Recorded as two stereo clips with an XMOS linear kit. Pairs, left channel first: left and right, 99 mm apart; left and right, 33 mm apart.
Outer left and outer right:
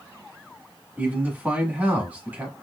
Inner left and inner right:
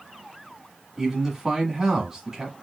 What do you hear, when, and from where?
1.0 s a man speaking: 15° right (ahead or behind), 1.0 m